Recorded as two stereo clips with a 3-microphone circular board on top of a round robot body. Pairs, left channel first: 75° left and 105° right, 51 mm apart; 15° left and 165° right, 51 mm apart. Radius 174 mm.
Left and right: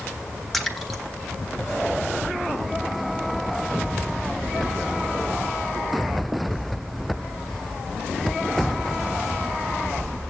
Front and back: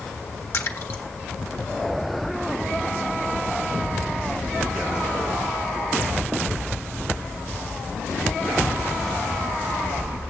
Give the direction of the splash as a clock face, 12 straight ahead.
12 o'clock.